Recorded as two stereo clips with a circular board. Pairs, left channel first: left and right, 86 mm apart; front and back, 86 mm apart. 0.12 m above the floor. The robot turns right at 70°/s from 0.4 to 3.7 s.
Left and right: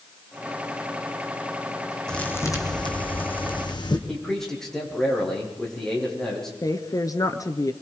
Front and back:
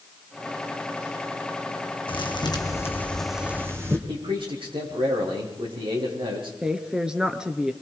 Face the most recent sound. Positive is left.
turn(degrees=105)